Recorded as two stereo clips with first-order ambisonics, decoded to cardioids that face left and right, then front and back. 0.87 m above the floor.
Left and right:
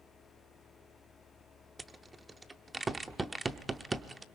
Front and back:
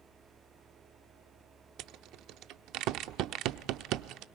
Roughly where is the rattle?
Behind.